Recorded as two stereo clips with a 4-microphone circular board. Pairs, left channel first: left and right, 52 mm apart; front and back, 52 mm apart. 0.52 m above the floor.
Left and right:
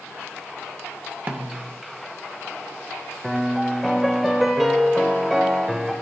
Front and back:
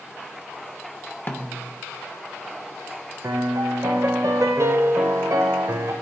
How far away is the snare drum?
About 0.7 m.